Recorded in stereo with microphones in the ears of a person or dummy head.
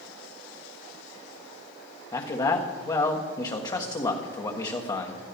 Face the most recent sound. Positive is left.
turn(degrees=25)  # may be behind; listen again after turning